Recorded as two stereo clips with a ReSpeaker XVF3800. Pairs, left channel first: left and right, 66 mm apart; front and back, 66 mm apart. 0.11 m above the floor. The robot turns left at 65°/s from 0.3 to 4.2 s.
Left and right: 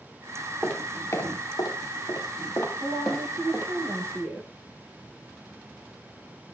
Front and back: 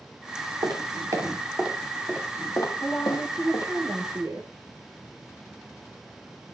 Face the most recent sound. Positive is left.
turn(degrees=-140)